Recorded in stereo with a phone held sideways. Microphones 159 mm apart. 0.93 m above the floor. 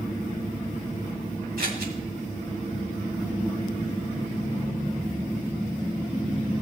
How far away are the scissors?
About 2 m.